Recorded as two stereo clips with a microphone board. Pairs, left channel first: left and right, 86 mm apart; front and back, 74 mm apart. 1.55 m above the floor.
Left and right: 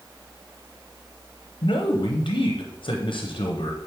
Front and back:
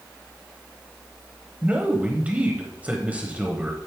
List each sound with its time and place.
1.6 s a man speaking: 110° left, 0.8 m